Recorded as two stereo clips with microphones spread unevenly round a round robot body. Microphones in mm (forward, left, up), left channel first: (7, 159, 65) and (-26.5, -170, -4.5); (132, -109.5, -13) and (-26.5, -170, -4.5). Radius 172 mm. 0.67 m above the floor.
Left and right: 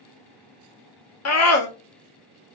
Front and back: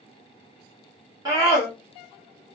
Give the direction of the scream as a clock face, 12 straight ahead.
8 o'clock.